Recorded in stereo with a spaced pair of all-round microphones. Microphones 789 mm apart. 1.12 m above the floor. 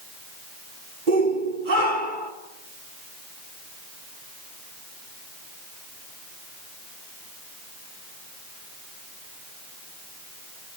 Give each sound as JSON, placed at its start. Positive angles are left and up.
{"t": 1.1, "sound": "a shout", "side_deg": -80, "distance_m": 4.0}